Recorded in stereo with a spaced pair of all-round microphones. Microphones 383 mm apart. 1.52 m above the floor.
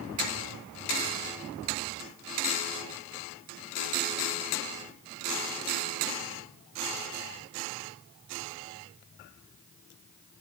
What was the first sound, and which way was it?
Only background noise.